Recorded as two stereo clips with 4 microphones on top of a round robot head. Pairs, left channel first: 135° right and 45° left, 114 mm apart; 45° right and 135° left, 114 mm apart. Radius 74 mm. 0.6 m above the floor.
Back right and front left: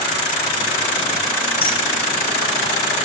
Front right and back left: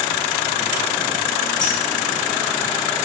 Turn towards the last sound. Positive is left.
turn(degrees=-90)